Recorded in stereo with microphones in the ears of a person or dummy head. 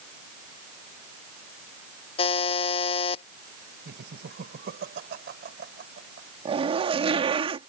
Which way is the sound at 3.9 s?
55° right (ahead or behind).